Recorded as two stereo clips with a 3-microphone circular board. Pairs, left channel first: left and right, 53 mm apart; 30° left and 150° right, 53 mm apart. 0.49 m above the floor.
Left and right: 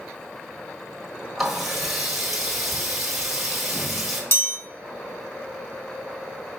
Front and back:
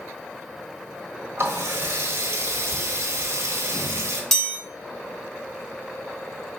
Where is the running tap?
175° right, 1.3 m.